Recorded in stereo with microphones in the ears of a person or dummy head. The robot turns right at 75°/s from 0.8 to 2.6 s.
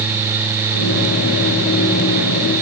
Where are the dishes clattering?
I don't hear dishes clattering.